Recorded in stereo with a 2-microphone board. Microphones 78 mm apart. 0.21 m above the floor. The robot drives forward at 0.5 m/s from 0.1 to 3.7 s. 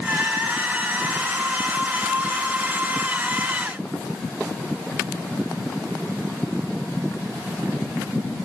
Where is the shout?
I don't hear a shout.